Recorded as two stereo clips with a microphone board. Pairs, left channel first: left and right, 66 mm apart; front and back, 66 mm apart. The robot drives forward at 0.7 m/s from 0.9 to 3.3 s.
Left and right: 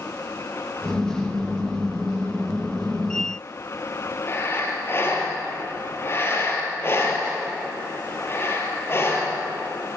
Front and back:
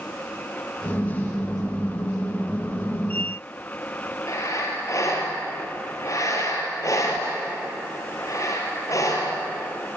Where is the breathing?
35° left, 5 m.